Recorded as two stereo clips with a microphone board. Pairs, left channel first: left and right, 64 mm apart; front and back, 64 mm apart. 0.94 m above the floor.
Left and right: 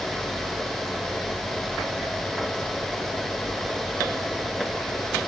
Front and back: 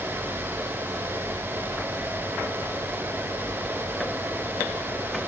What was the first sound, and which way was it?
Only background noise.